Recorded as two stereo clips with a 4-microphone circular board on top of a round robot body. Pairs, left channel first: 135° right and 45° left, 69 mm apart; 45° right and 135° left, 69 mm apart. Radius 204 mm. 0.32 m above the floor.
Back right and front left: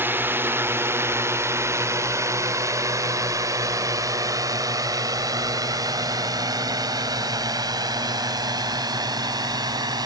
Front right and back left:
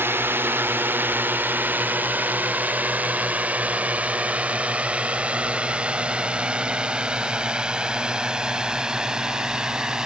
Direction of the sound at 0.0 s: 90° left.